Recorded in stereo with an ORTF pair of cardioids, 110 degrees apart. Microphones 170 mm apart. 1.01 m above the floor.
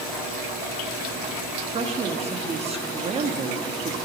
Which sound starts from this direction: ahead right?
A woman speaking, at 1.6 s.